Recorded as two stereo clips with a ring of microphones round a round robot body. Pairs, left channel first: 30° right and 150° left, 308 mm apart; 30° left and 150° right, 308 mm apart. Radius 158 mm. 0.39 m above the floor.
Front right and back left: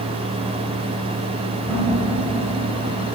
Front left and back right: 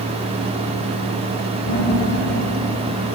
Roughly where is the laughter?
Ahead left.